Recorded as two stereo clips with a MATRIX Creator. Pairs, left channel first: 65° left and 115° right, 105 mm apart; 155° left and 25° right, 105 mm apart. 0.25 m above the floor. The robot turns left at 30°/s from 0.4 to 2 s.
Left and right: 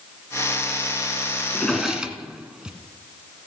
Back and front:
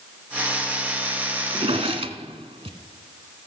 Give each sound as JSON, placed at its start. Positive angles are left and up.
{"t": 1.5, "sound": "a drawer", "azimuth_deg": -15, "distance_m": 1.2}